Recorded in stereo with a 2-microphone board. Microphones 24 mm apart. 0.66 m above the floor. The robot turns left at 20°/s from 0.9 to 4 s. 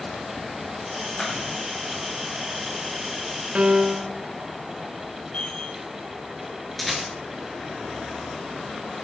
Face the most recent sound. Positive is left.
turn(degrees=5)  # may be behind; listen again after turning